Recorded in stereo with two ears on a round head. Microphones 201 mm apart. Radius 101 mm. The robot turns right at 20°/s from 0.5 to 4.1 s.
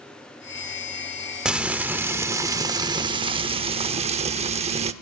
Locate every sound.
1.4 s frying: 175° right, 0.8 m; by 4.9 s 120° right, 0.8 m